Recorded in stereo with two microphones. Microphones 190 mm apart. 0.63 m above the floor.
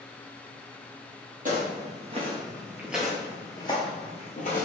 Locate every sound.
1.4 s footsteps: 45° right (ahead or behind), 1.2 m; by 4.7 s 50° left (ahead or behind), 1.2 m